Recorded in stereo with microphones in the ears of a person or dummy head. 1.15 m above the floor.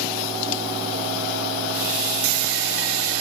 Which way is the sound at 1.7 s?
45° right (ahead or behind).